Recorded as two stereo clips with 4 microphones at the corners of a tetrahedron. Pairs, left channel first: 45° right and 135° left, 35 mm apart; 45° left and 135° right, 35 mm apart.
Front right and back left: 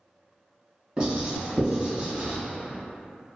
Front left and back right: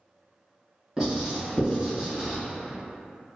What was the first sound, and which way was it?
Writing, 175° left.